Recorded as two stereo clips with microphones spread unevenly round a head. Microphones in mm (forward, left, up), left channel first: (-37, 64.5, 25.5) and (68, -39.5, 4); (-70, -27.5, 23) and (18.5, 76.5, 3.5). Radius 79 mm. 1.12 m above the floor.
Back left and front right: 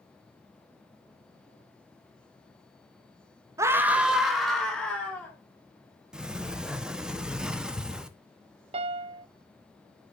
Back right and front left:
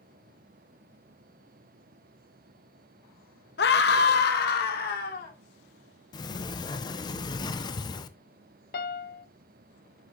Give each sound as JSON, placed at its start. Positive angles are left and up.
{"t": 3.6, "sound": "a scream", "azimuth_deg": -115, "distance_m": 1.1}
{"t": 6.1, "sound": "a sliding door", "azimuth_deg": -100, "distance_m": 0.7}
{"t": 8.7, "sound": "a piano", "azimuth_deg": -95, "distance_m": 0.7}